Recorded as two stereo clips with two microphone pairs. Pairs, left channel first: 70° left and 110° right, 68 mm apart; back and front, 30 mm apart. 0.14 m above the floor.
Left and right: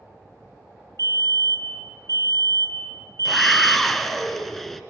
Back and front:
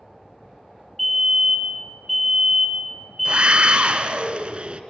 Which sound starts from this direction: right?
A fire alarm, at 1.0 s.